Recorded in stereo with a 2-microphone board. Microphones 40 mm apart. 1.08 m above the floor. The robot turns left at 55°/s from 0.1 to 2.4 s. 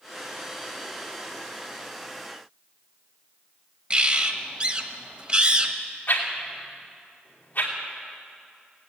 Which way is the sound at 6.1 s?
50° left (ahead or behind).